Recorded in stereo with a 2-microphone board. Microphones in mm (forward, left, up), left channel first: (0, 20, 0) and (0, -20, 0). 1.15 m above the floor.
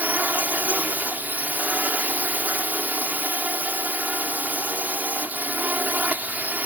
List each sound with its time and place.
0.0 s a drone: 45° right (ahead or behind)